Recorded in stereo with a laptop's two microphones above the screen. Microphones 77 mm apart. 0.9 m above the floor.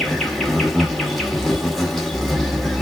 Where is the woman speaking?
I don't hear a woman speaking.